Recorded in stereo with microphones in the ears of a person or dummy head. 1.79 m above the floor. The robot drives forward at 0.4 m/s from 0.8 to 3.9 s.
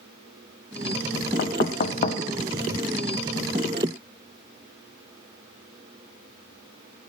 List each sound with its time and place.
1.4 s knocking: 45° left (ahead or behind), 0.9 m; by 2.2 s 35° left (ahead or behind), 1.0 m